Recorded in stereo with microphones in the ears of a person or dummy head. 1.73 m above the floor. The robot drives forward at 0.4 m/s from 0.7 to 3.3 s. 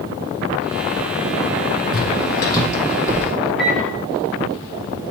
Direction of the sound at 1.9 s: 25° left (ahead or behind).